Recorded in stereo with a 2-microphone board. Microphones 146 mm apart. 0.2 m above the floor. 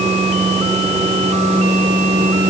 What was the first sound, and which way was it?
Only background noise.